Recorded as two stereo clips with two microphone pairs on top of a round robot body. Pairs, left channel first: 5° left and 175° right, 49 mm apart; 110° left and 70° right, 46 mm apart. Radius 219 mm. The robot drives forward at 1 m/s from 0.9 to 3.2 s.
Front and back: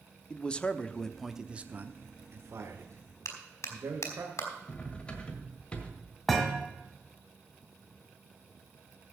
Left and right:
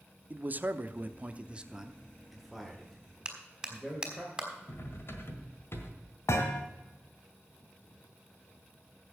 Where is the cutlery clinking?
75° left, 1.7 m.